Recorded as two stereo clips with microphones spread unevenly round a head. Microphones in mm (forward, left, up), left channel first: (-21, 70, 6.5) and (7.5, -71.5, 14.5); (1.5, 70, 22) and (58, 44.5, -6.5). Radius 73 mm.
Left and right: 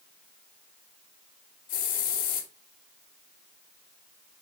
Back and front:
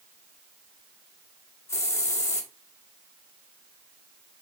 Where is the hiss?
130° left, 2.0 m.